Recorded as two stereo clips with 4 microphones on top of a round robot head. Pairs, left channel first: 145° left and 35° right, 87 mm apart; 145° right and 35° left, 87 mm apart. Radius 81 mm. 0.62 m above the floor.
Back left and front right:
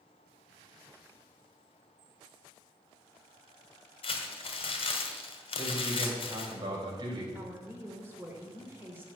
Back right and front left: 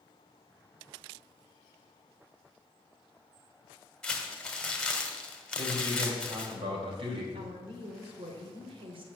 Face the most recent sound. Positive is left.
turn(degrees=35)